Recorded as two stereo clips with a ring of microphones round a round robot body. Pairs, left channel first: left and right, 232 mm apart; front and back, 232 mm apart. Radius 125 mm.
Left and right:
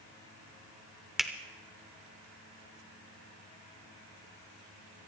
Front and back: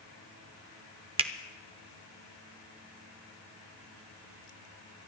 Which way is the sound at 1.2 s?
175° right.